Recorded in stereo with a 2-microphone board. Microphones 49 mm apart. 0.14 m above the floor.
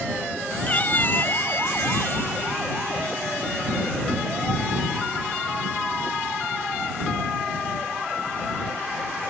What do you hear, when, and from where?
0.7 s a cat meowing: 30° left (ahead or behind); by 2.4 s 55° left (ahead or behind)